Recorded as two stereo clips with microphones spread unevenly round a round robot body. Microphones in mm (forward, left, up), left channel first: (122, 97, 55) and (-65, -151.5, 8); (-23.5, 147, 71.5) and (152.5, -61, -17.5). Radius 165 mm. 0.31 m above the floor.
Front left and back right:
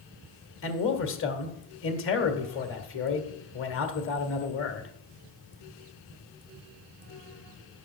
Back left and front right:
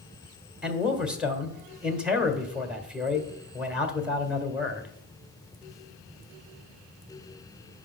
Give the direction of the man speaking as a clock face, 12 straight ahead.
12 o'clock.